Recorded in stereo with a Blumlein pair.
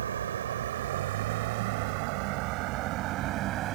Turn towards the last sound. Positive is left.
turn(degrees=-35)